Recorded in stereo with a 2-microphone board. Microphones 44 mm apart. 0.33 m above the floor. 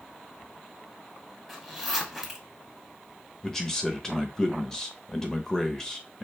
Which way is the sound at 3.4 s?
10° left (ahead or behind).